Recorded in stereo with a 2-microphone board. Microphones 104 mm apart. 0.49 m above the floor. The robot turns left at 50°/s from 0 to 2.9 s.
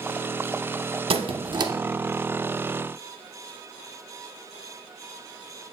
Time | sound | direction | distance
1.1 | a squeak | 105° right | 0.6 m